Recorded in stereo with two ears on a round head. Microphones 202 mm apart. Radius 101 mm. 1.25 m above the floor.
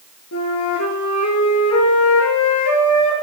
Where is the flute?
70° left (ahead or behind), 4.5 m.